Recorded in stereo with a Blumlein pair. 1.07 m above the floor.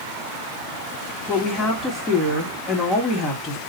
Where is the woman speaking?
15° left, 1.3 m.